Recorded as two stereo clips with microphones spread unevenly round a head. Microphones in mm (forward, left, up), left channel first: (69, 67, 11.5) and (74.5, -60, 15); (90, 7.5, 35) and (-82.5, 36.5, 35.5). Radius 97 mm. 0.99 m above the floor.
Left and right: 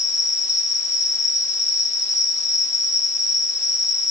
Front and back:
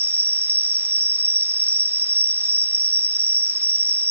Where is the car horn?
I don't hear a car horn.